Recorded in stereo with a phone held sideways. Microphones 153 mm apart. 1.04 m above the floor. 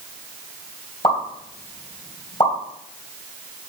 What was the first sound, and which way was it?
A pop, 35° left (ahead or behind).